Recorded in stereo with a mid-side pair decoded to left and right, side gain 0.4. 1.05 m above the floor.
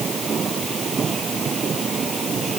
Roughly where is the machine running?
Ahead right.